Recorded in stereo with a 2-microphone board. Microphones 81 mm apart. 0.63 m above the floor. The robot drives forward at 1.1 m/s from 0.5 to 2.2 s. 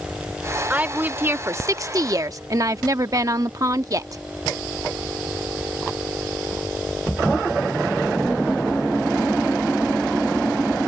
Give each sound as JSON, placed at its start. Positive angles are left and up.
{"t": 0.7, "sound": "a woman speaking", "side_deg": -20}